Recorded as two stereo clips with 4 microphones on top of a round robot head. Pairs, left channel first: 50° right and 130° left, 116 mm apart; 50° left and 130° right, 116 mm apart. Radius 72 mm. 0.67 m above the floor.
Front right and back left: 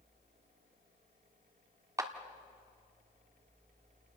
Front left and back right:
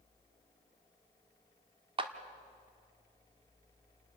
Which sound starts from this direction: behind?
A clap, at 2.0 s.